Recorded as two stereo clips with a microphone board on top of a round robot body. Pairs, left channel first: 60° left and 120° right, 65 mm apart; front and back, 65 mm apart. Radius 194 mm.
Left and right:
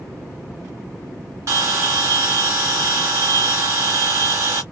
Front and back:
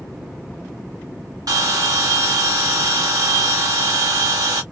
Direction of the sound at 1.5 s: 160° right.